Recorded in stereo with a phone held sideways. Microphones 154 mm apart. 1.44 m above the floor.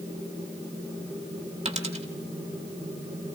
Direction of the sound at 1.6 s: 45° right (ahead or behind).